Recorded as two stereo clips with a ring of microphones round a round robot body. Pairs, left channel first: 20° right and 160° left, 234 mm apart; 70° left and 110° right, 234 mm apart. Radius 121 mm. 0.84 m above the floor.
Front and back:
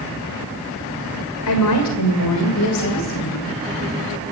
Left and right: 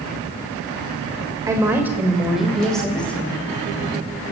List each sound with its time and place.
1.5 s a woman speaking: 35° right, 2.5 m; by 3.5 s 15° right, 3.5 m